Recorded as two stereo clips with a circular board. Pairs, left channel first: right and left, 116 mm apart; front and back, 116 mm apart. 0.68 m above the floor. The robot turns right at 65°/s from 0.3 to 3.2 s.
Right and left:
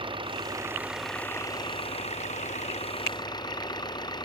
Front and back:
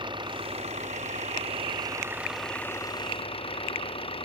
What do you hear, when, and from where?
0.0 s an engine running: 135° left; by 4.2 s 40° right